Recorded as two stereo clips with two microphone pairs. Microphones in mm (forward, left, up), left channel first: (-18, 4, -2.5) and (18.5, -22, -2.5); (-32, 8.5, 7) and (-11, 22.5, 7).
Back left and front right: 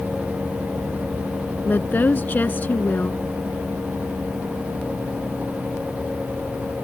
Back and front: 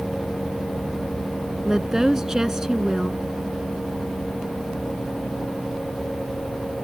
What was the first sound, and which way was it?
A woman speaking, 105° left.